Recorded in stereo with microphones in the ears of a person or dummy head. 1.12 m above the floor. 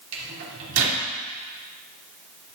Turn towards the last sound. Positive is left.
turn(degrees=-75)  # may be behind; listen again after turning